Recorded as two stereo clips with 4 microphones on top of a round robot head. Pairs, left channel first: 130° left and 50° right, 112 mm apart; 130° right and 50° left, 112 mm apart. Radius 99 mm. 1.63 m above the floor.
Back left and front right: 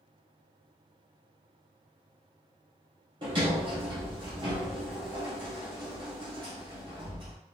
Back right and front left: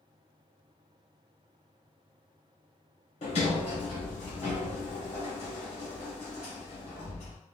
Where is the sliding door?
100° right, 1.2 m.